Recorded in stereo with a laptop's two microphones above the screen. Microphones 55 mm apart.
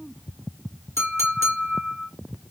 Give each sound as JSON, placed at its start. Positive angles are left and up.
{"t": 1.0, "sound": "a clink", "side_deg": 60, "distance_m": 1.5}